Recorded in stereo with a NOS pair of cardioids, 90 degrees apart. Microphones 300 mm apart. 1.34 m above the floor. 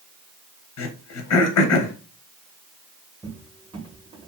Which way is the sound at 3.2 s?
15° right.